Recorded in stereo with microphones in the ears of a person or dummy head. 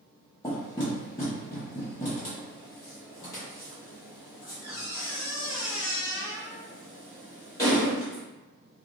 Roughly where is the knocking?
Left.